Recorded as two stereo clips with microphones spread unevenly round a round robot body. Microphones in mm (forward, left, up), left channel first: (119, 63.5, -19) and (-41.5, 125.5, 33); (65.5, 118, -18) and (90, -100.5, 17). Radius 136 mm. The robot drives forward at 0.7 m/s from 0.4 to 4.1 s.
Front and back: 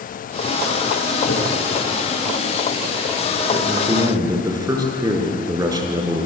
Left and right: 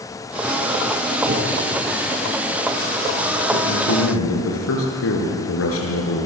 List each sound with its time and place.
1.3 s a whoosh: 50° right, 8.5 m
3.5 s a man speaking: 90° left, 7.5 m